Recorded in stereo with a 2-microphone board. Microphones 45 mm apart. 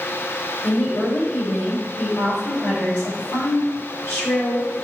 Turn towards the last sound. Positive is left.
turn(degrees=65)  # may be behind; listen again after turning